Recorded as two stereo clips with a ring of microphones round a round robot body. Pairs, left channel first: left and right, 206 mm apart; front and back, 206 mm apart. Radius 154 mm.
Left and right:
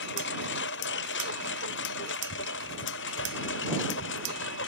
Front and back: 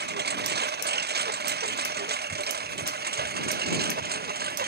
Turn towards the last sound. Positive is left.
turn(degrees=140)